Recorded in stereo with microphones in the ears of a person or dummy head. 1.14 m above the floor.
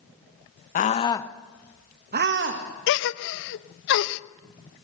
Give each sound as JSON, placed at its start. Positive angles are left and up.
{"t": 0.8, "sound": "a scream", "side_deg": 40, "distance_m": 1.4}
{"t": 2.9, "sound": "a gasp", "side_deg": 65, "distance_m": 0.8}